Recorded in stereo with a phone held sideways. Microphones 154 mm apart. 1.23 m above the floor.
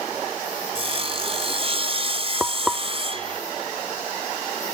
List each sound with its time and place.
0.8 s sawing: 40° right (ahead or behind)
2.4 s frying: 5° right (ahead or behind)